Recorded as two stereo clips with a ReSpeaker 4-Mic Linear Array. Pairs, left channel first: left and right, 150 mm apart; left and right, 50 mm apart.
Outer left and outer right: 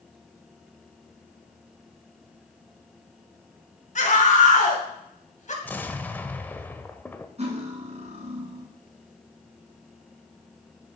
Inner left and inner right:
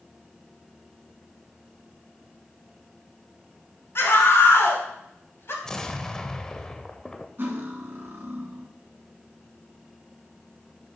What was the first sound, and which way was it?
A scream, 55° left (ahead or behind).